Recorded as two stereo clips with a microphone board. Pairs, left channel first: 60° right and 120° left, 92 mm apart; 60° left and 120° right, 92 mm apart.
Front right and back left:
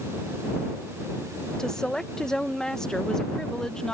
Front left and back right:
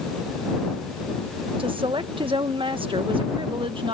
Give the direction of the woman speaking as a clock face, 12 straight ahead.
5 o'clock.